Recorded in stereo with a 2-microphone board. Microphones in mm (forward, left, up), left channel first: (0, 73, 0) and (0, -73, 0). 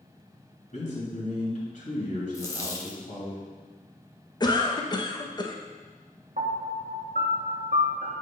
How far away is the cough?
About 0.6 m.